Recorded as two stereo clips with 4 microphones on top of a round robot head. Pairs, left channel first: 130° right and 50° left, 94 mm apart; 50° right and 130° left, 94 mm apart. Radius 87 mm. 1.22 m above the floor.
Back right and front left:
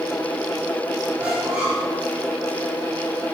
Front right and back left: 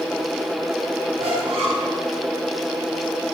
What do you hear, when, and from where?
1.2 s a squeak: 125° left, 4 m